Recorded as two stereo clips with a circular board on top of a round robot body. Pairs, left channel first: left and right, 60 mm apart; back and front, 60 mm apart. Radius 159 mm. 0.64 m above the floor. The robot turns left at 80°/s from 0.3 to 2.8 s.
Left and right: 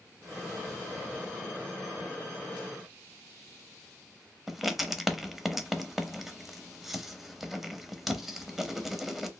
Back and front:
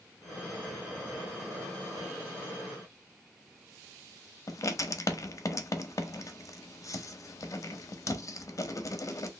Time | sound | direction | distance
4.5 | writing | straight behind | 0.7 m